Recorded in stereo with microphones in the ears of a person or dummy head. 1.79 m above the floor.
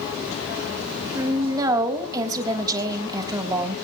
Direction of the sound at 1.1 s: 25° right (ahead or behind).